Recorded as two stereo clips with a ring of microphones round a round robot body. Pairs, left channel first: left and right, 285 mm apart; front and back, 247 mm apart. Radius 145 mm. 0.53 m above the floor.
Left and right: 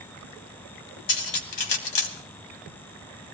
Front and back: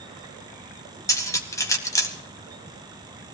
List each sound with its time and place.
1.1 s cutlery clinking: 80° left, 2.5 m